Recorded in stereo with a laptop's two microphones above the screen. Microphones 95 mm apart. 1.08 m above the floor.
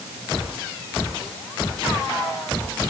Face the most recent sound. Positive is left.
No sound to turn to.